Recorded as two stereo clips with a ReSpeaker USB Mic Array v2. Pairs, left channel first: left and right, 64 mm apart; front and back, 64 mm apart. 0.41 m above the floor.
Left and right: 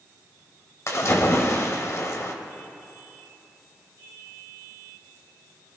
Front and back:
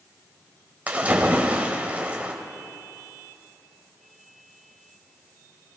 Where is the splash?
115° left, 1.4 m.